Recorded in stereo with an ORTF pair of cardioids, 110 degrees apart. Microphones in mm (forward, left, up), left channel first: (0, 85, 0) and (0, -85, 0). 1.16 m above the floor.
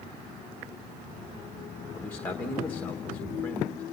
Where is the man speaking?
10° left, 1.3 m.